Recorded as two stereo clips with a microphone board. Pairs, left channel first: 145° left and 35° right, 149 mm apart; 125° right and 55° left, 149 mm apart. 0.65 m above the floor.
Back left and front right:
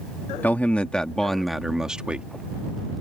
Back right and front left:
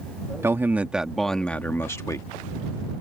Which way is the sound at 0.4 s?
90° left.